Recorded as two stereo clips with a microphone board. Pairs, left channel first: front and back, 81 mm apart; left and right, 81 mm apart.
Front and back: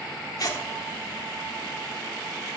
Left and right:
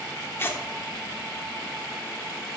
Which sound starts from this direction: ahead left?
Tearing paper, at 0.4 s.